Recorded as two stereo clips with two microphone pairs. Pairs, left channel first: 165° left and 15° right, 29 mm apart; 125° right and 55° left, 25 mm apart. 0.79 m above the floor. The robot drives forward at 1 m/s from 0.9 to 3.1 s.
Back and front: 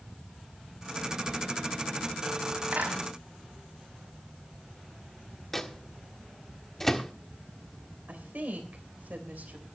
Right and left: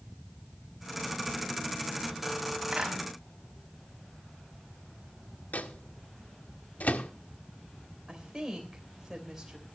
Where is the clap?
5° right, 5 m.